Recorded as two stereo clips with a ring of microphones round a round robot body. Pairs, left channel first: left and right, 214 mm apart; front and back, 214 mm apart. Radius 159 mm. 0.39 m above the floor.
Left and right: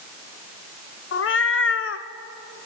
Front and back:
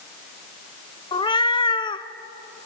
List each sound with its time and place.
1.1 s a cat meowing: 70° left, 1.0 m